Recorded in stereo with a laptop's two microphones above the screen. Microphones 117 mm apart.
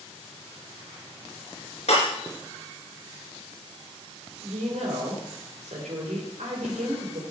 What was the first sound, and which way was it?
Breaking glass, 65° left (ahead or behind).